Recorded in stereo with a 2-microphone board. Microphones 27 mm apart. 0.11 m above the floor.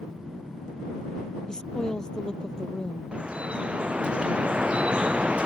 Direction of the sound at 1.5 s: 30° left (ahead or behind).